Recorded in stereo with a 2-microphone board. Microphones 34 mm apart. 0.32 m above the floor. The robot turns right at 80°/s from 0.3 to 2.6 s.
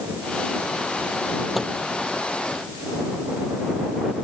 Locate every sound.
1.6 s a microwave: centre (ahead or behind); by 1.8 s 15° left (ahead or behind)